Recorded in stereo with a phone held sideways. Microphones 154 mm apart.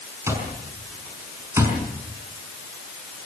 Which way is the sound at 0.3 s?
20° right (ahead or behind).